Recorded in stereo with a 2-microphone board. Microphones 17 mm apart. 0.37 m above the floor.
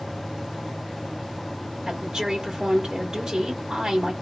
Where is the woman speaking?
25° right (ahead or behind), 1.3 m.